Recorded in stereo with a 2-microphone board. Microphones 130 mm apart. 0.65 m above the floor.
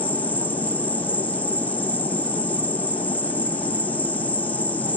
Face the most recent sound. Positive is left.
turn(degrees=15)  # may be behind; listen again after turning